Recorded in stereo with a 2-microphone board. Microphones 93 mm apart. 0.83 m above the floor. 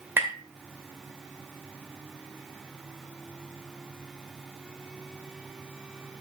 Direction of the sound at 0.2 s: 25° right (ahead or behind).